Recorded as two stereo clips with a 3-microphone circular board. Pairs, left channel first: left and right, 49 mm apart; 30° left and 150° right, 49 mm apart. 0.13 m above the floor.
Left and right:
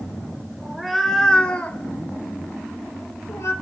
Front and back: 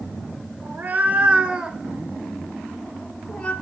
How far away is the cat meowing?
About 1.1 m.